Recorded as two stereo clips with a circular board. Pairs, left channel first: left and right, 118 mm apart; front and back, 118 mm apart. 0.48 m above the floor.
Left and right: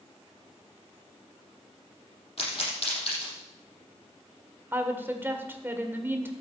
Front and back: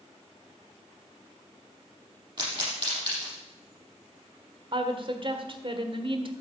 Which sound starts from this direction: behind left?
A pop, at 2.4 s.